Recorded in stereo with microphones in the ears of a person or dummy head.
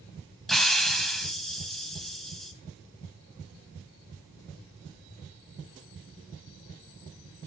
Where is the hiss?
Centre (ahead or behind), 0.7 m.